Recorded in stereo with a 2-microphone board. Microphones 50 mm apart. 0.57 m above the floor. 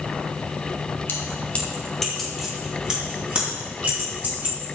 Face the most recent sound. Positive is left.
turn(degrees=-35)  # may be behind; listen again after turning